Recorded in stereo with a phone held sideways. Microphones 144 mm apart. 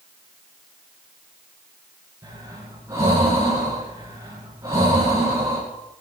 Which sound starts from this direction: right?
Breathing, at 2.2 s.